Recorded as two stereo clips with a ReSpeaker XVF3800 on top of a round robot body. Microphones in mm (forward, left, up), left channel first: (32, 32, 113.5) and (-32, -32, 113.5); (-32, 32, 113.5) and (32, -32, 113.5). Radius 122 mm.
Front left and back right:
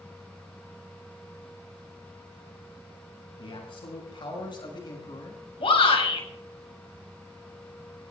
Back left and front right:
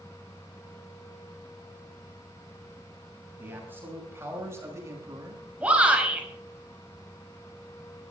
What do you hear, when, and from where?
3.4 s a man speaking: 25° left, 6.5 m; by 5.5 s 5° left, 4 m
5.6 s a shout: 30° left, 5.5 m